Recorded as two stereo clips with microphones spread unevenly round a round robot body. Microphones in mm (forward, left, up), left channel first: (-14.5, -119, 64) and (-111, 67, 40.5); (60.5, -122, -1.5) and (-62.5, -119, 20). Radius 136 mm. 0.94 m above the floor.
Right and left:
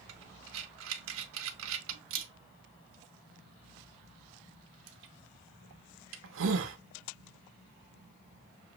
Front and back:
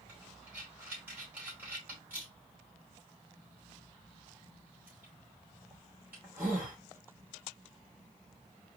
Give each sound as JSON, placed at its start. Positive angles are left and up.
{"t": 0.1, "sound": "breathing", "azimuth_deg": 95, "distance_m": 0.7}